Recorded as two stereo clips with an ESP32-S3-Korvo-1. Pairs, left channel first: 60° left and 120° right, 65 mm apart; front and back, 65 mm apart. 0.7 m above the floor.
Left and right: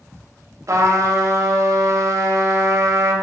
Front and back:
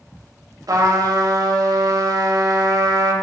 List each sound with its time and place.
0.7 s a trumpet: 155° right, 0.6 m